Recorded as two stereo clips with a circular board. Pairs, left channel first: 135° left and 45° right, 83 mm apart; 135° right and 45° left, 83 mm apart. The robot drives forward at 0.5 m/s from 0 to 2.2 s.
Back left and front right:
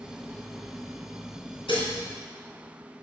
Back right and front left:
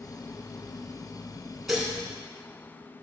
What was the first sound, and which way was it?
Dishes clattering, 130° left.